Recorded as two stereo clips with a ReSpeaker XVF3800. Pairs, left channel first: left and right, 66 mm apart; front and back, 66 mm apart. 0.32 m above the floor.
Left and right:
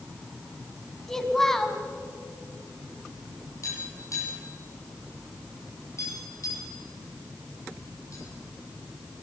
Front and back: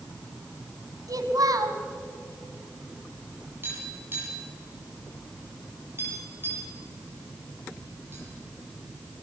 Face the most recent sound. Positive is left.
turn(degrees=125)